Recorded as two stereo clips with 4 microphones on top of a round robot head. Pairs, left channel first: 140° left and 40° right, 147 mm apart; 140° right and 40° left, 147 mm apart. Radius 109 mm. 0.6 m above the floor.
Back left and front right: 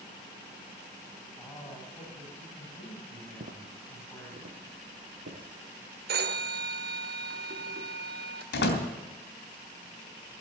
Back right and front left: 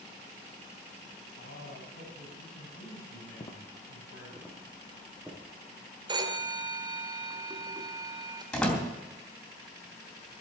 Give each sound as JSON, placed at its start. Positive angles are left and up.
{"t": 1.4, "sound": "a man speaking", "azimuth_deg": -140, "distance_m": 5.0}
{"t": 3.4, "sound": "footsteps", "azimuth_deg": -80, "distance_m": 1.2}
{"t": 6.1, "sound": "a phone ringing", "azimuth_deg": -25, "distance_m": 1.6}
{"t": 8.5, "sound": "a door slam", "azimuth_deg": 135, "distance_m": 3.0}